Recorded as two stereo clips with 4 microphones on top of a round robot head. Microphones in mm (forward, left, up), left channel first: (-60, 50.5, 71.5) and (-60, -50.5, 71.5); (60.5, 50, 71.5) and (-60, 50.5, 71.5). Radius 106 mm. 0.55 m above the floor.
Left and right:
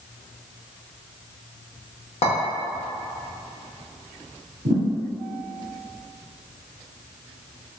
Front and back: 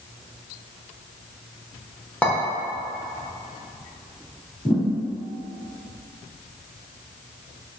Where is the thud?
85° right, 0.8 m.